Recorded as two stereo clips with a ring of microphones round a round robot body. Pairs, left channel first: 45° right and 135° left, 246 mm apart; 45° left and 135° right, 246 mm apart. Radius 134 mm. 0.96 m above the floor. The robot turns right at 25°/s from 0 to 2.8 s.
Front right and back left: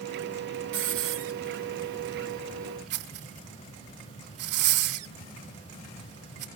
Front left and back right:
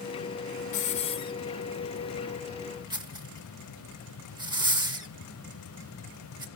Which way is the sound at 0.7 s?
100° left.